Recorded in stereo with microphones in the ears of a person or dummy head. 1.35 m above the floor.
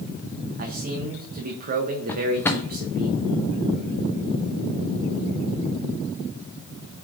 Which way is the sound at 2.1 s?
15° left (ahead or behind).